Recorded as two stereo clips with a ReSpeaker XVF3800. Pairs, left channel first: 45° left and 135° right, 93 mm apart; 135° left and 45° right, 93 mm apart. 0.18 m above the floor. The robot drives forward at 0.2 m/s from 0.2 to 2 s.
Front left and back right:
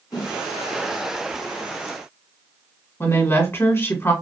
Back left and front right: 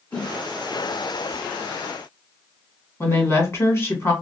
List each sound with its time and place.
0.1 s a whoosh: 65° left, 1.2 m
3.0 s a woman speaking: 95° left, 1.7 m